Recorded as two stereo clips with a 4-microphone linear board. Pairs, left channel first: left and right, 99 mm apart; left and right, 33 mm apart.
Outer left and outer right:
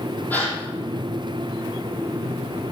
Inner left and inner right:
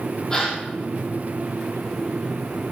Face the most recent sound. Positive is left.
turn(degrees=15)  # may be behind; listen again after turning